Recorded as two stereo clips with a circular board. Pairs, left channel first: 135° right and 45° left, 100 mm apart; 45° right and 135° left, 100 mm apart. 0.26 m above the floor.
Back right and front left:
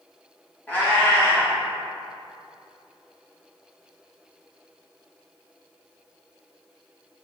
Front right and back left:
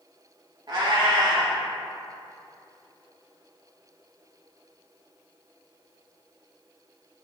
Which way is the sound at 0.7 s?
155° left.